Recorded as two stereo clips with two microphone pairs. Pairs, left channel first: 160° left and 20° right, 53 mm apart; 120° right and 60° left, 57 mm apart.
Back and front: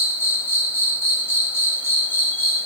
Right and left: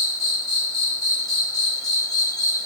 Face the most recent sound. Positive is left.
turn(degrees=155)